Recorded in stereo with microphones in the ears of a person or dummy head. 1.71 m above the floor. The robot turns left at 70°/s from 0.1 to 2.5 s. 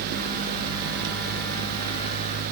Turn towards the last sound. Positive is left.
No sound to turn to.